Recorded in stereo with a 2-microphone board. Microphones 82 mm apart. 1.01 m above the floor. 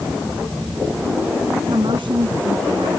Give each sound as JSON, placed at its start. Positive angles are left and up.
{"t": 1.7, "sound": "a woman speaking", "side_deg": -70}